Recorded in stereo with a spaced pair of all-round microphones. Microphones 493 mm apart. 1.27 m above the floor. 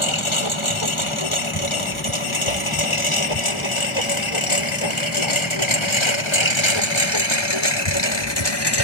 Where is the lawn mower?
75° left (ahead or behind); by 8.8 s 55° left (ahead or behind).